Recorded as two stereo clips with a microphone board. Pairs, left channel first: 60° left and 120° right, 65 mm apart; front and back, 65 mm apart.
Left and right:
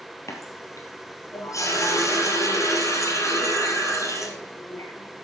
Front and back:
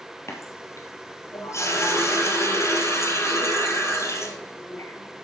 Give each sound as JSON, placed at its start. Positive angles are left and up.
{"t": 0.3, "sound": "a running tap", "azimuth_deg": 35, "distance_m": 2.0}